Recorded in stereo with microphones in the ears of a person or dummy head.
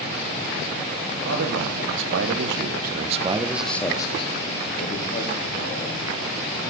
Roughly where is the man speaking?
Right.